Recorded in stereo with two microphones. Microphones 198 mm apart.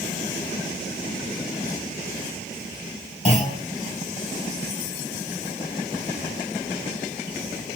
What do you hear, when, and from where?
3.2 s a clunk: 40° left (ahead or behind), 2.5 m